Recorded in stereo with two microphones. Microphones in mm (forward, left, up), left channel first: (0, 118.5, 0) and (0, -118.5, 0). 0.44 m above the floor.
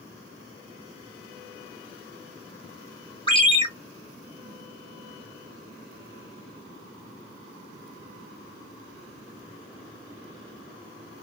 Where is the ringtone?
20° left (ahead or behind), 0.8 m.